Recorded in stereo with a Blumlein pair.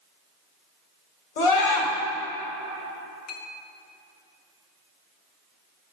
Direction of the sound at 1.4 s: 55° left.